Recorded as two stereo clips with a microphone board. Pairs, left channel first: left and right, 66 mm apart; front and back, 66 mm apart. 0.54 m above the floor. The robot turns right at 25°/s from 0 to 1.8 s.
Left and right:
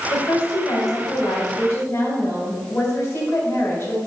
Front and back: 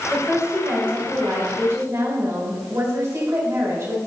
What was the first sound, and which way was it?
A woman speaking, 105° left.